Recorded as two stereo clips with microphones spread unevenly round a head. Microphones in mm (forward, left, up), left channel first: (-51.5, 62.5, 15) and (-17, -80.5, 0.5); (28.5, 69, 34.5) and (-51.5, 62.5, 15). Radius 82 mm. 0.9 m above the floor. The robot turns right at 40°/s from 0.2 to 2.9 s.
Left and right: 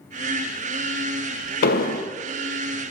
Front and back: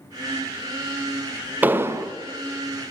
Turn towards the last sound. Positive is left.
turn(degrees=170)